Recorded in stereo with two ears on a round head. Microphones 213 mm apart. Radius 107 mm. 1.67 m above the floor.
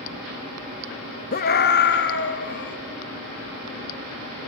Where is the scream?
40° left (ahead or behind), 1.0 m; by 2.8 s 50° left (ahead or behind), 3 m.